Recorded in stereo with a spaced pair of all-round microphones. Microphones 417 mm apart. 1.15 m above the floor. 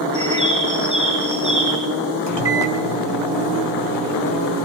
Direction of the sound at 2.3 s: 80° right.